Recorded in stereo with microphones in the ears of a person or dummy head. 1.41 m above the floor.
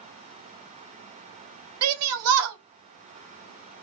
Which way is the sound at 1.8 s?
80° right.